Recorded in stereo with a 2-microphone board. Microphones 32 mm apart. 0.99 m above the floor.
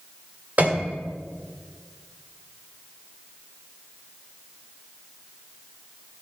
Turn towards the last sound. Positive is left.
turn(degrees=-50)  # may be behind; listen again after turning